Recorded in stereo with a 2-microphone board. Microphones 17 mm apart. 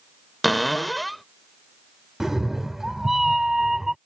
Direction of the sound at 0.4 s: 10° left (ahead or behind).